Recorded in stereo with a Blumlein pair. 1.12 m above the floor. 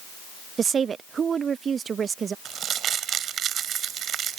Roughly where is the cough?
I don't hear a cough.